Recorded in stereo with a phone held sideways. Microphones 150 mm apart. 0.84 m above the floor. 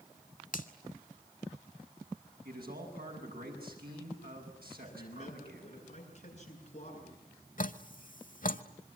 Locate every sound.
0.5 s a finger snap: 65° left (ahead or behind), 1.8 m
2.5 s a man speaking: 85° right, 7.5 m
4.8 s a man speaking: 50° left (ahead or behind), 9 m
7.6 s dripping: 65° left (ahead or behind), 1.0 m